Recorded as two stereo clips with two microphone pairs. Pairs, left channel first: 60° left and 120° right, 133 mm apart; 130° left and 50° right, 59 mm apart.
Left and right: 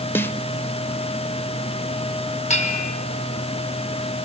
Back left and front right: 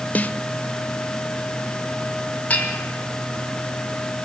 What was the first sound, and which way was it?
A snare drum, 105° left.